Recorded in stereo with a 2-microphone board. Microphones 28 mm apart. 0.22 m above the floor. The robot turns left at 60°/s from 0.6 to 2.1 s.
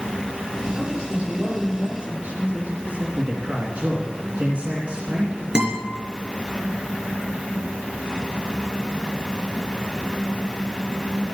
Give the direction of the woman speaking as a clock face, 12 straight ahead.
12 o'clock.